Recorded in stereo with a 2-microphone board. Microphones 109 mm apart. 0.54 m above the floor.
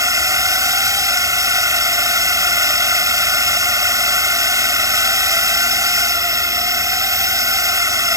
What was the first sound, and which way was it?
A drone, 30° right (ahead or behind).